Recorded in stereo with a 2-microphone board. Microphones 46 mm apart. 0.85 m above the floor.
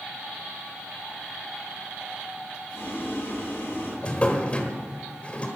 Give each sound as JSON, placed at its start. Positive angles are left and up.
{"t": 2.7, "sound": "boiling", "side_deg": 75, "distance_m": 6.5}
{"t": 4.0, "sound": "a drawer", "side_deg": 25, "distance_m": 1.4}